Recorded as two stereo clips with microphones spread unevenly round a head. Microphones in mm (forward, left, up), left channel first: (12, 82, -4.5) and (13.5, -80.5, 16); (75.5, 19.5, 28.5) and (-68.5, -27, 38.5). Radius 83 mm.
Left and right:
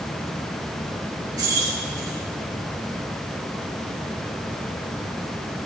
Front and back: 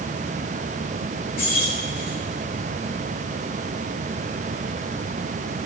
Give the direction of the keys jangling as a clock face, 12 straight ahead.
1 o'clock.